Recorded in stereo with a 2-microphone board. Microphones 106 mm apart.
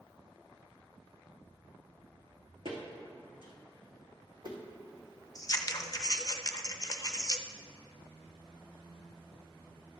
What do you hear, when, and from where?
2.6 s footsteps: 65° right (ahead or behind), 3 m; by 4.6 s 45° right (ahead or behind), 2.5 m
5.3 s scissors: 40° left (ahead or behind), 0.5 m